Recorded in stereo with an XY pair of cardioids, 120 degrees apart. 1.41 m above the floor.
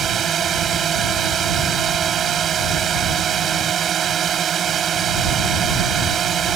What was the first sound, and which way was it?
A drone, 45° right.